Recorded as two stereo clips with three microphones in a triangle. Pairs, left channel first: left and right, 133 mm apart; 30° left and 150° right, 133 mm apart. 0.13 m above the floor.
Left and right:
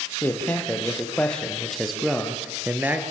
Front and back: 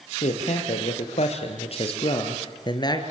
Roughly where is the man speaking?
Ahead.